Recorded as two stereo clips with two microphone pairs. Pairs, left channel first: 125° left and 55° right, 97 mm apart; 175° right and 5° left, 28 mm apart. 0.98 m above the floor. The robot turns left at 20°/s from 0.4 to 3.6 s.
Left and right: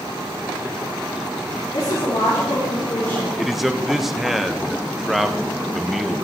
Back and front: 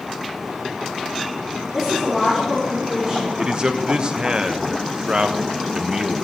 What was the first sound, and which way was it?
A woman speaking, 110° left.